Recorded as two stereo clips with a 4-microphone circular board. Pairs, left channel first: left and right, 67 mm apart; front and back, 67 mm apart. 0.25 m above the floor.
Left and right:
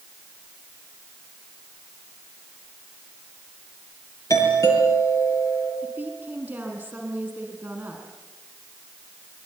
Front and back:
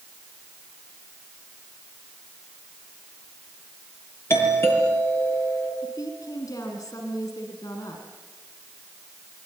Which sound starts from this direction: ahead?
A woman speaking, at 5.8 s.